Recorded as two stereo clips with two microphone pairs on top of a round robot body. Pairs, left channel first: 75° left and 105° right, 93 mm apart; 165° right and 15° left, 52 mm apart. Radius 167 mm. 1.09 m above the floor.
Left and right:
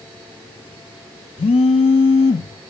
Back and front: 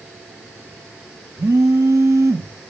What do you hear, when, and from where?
1.4 s a phone buzzing: 55° left, 0.7 m